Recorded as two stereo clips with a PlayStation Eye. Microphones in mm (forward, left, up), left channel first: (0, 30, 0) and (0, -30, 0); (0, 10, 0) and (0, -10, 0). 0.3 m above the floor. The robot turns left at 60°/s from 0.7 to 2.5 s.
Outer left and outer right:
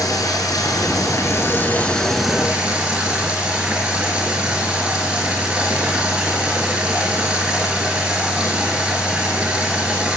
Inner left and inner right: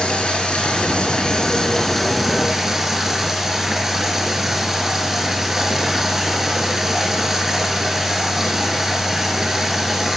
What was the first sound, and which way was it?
Running water, 95° left.